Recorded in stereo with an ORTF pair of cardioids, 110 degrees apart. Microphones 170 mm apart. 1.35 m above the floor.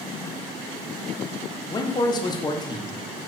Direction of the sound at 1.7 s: 25° left.